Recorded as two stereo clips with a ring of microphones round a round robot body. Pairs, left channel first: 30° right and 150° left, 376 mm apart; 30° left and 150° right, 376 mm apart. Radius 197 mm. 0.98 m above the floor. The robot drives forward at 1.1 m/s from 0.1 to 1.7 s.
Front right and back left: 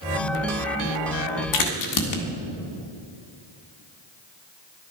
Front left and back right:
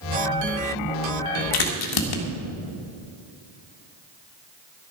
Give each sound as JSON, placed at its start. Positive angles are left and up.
{"t": 1.5, "sound": "a crack", "azimuth_deg": 10, "distance_m": 1.9}